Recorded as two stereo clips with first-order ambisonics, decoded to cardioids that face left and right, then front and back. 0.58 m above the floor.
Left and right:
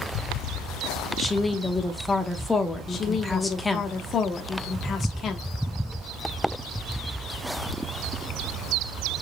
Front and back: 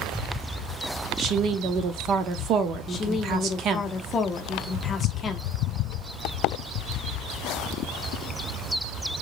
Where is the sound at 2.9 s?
45° left, 0.7 m.